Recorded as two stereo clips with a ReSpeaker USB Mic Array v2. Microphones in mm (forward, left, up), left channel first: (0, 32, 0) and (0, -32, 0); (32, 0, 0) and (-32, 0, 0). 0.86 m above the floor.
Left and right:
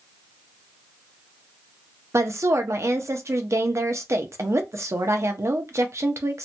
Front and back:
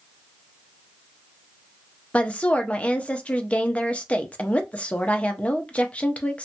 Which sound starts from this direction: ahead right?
A woman speaking, at 2.1 s.